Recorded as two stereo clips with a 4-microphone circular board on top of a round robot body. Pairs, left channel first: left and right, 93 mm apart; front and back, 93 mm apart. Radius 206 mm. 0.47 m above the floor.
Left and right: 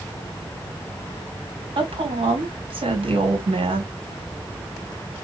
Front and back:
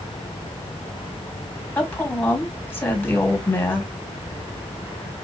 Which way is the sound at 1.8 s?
70° right.